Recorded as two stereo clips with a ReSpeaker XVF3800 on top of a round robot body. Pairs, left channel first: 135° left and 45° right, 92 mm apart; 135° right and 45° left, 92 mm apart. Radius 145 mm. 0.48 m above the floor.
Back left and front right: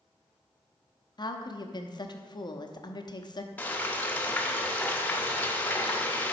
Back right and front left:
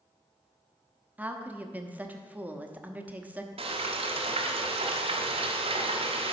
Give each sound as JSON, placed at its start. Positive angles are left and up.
{"t": 1.2, "sound": "a woman speaking", "azimuth_deg": 115, "distance_m": 1.0}
{"t": 3.6, "sound": "frying", "azimuth_deg": 60, "distance_m": 1.0}